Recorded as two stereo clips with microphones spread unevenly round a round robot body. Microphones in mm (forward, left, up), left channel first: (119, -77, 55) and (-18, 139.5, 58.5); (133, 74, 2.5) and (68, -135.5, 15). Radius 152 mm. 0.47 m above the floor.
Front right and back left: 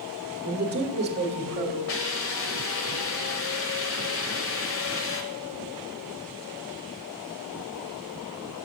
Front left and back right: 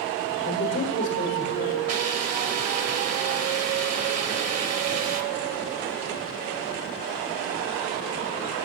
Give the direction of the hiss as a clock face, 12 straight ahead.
3 o'clock.